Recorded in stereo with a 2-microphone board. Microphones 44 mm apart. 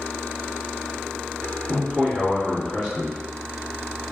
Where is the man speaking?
15° right (ahead or behind), 1.3 m.